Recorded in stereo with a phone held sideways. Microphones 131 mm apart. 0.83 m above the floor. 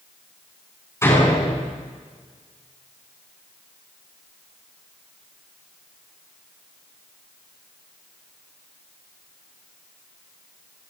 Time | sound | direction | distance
1.0 | a door slam | 20° left (ahead or behind) | 6 m